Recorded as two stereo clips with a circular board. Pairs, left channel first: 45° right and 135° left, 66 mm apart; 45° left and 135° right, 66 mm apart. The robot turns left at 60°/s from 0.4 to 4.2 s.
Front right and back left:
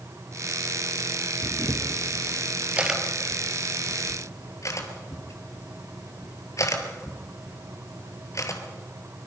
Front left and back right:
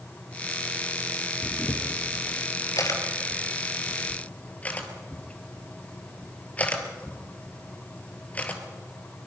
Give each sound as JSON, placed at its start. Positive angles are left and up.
{"t": 1.4, "sound": "a camera shutter", "azimuth_deg": 145, "distance_m": 2.5}